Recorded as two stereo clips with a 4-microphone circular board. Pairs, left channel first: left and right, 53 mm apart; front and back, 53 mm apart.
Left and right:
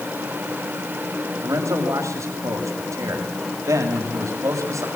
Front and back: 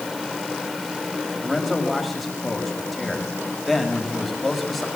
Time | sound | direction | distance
1.4 | a man speaking | 90° right | 6 m